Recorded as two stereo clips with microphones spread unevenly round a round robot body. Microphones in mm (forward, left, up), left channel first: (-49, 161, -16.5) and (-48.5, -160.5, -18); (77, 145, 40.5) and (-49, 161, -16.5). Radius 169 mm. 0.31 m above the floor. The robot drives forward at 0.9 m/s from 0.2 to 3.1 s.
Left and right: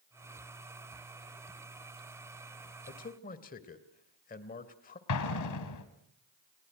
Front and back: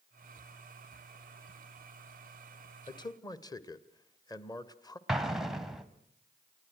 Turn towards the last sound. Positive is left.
turn(degrees=105)